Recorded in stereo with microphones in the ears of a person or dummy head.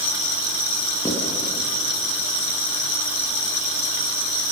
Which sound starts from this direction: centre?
Writing, at 1.1 s.